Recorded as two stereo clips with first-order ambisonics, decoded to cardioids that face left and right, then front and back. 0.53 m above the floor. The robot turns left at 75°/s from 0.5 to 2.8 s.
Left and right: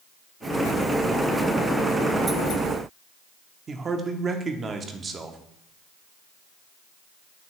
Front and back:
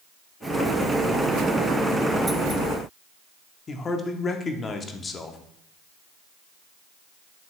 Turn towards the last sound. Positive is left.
turn(degrees=-45)